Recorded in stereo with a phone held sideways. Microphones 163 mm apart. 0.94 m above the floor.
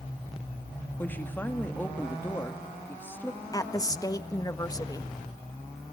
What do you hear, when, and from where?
1.0 s a woman speaking: 10° left (ahead or behind), 1.8 m
3.5 s a woman speaking: 20° left (ahead or behind), 1.4 m